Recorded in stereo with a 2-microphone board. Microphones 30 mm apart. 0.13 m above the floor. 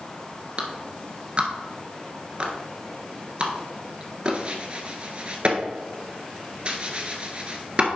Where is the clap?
35° right (ahead or behind), 1.3 m.